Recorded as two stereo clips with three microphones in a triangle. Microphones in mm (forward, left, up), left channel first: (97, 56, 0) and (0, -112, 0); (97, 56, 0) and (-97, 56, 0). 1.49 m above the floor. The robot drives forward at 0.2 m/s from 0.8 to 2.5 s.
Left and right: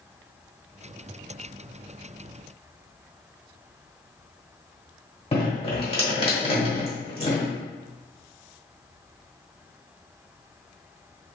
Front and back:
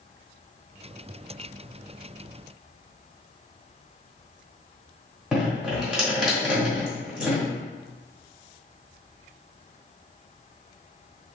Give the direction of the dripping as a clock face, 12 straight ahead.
9 o'clock.